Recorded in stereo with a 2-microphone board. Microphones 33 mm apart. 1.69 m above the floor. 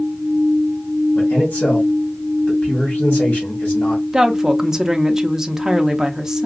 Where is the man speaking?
55° left (ahead or behind), 1.8 m.